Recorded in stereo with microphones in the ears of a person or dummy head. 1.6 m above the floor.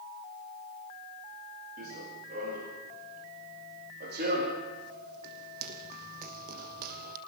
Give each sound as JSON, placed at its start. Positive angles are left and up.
{"t": 1.8, "sound": "running footsteps", "side_deg": -50, "distance_m": 9.0}